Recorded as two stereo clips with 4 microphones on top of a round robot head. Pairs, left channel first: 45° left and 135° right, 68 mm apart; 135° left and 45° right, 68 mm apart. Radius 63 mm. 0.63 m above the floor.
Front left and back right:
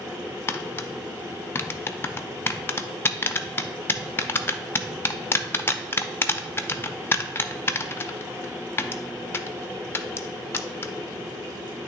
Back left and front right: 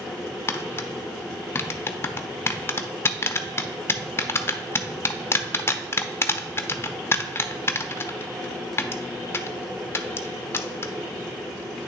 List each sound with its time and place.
0.5 s tapping: 90° left, 0.6 m